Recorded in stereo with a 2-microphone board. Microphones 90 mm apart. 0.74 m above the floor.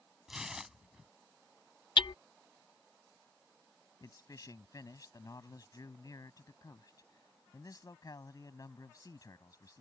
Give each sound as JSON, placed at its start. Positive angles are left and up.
{"t": 0.3, "sound": "tearing paper", "side_deg": -5}
{"t": 2.0, "sound": "hammering", "side_deg": 60}
{"t": 4.0, "sound": "a man speaking", "side_deg": 40}